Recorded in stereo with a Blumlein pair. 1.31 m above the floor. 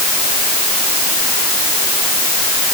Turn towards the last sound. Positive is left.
No sound to turn to.